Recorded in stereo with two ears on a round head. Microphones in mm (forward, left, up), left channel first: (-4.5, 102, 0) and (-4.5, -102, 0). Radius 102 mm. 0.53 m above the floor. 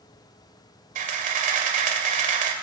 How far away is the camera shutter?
About 2.5 m.